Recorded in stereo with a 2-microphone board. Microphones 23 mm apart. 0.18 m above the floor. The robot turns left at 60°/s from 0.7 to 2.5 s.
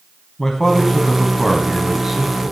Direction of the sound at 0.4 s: 20° left (ahead or behind).